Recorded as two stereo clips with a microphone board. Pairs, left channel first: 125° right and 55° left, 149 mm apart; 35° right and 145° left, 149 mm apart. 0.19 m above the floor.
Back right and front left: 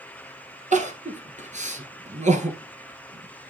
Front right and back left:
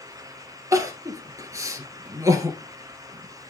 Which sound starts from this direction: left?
Crying, at 0.7 s.